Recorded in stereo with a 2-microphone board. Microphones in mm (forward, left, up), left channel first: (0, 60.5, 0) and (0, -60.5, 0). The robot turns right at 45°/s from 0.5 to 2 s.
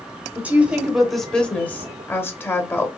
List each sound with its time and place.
0.3 s a woman speaking: 10° right (ahead or behind), 1.1 m; by 2.9 s 20° left (ahead or behind), 1.1 m